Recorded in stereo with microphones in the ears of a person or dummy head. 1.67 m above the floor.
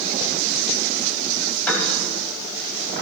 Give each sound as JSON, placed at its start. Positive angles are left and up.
{"t": 1.7, "sound": "a piano", "side_deg": 10, "distance_m": 3.5}